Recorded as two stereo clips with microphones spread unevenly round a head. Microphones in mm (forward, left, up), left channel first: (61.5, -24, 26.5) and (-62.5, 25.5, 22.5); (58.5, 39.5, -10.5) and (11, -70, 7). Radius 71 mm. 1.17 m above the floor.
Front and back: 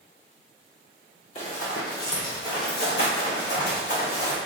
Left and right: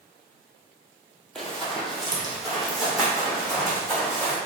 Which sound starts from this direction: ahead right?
Running footsteps, at 1.4 s.